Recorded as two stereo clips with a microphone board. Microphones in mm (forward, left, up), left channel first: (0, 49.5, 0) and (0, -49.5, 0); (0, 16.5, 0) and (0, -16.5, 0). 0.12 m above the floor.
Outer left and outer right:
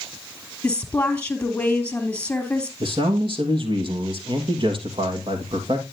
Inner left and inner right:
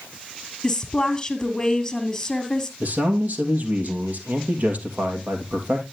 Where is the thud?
I don't hear a thud.